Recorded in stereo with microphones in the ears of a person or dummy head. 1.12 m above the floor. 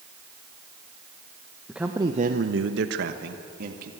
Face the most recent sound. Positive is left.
turn(degrees=-55)  # may be behind; listen again after turning